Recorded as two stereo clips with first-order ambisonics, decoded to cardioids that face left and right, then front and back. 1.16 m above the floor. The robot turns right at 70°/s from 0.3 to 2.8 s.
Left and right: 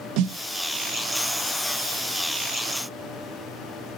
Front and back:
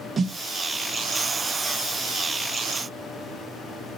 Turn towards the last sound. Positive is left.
turn(degrees=70)